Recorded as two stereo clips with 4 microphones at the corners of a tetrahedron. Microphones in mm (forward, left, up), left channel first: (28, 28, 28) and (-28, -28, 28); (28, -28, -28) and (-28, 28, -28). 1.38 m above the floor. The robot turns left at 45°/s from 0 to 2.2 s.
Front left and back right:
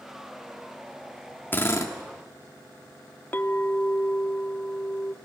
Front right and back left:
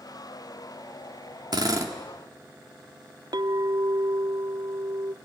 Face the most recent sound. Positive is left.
turn(degrees=110)